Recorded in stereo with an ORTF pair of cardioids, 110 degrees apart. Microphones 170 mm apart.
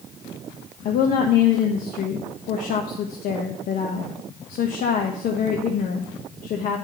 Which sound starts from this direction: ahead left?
A woman speaking, at 0.8 s.